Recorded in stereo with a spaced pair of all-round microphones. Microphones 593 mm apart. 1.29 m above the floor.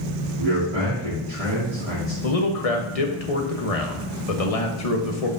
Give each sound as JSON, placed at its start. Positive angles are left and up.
{"t": 0.4, "sound": "a man speaking", "side_deg": -80, "distance_m": 2.5}
{"t": 2.2, "sound": "a man speaking", "side_deg": 75, "distance_m": 1.2}